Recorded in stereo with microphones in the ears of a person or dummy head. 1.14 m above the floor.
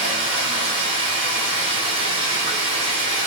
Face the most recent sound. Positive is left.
turn(degrees=-30)  # may be behind; listen again after turning